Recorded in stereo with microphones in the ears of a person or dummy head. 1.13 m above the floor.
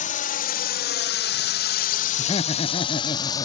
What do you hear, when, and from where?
0.0 s a drone: 40° left (ahead or behind); by 3.5 s 20° left (ahead or behind)
2.2 s laughter: 30° left (ahead or behind)